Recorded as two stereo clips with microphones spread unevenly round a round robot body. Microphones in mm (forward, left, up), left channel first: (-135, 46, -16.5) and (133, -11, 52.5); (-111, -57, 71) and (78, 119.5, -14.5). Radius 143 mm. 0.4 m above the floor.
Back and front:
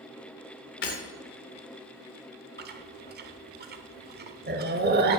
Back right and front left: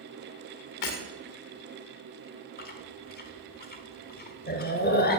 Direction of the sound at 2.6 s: 70° right.